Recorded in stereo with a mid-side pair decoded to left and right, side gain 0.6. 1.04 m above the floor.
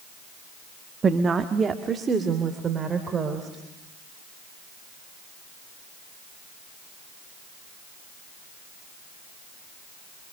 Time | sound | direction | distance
1.0 | a woman speaking | 30° right | 1.3 m